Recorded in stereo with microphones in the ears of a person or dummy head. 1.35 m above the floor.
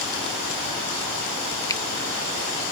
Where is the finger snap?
20° left (ahead or behind).